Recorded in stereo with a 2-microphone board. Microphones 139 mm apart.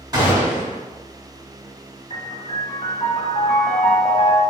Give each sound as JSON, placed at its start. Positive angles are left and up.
{"t": 0.1, "sound": "a gunshot", "side_deg": -30, "distance_m": 1.8}
{"t": 2.1, "sound": "a piano", "side_deg": 45, "distance_m": 0.8}